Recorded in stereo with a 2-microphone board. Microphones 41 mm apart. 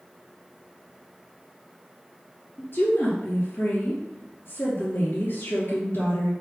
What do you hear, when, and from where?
2.6 s a woman speaking: 60° left (ahead or behind), 3 m